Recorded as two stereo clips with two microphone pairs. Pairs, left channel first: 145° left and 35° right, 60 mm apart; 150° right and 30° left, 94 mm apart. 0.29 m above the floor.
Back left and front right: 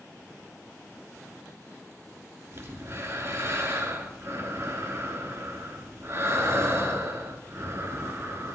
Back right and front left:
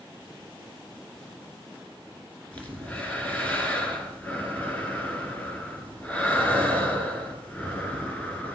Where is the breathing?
75° right, 1.8 m.